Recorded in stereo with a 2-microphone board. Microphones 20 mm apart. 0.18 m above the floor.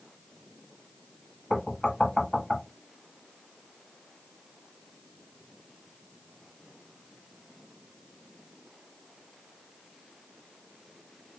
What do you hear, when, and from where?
1.5 s knocking: 25° left (ahead or behind), 0.8 m